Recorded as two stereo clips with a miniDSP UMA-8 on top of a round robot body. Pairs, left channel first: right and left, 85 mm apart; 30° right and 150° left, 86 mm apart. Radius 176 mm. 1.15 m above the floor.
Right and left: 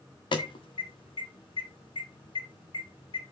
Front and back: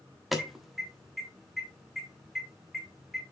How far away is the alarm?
About 1.6 m.